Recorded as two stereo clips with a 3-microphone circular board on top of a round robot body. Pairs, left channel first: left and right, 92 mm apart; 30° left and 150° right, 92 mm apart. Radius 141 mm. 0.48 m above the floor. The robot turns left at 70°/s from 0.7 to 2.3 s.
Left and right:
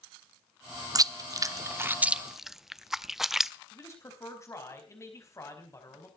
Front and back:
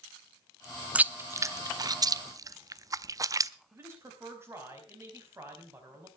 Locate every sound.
0.9 s chewing: 80° right, 0.8 m; by 3.5 s 175° right, 0.8 m
3.7 s a man speaking: 145° left, 4 m